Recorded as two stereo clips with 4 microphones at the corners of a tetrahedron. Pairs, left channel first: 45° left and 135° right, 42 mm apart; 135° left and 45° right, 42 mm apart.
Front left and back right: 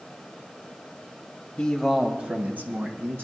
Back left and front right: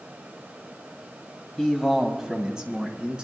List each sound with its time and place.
1.6 s a man speaking: 70° left, 1.0 m; by 3.2 s 110° right, 2.5 m